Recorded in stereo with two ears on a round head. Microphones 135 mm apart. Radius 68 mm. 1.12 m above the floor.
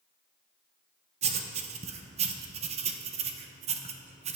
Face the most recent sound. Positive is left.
turn(degrees=-45)  # may be behind; listen again after turning